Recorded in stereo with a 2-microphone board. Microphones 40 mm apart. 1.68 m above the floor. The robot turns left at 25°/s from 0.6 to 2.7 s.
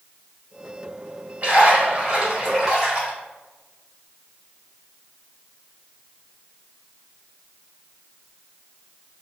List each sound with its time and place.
1.4 s a splash: 115° right, 1.5 m; by 3.1 s 150° right, 1.5 m